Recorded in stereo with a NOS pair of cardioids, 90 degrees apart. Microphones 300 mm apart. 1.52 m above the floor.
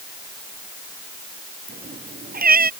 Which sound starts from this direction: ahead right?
A cat meowing, at 1.7 s.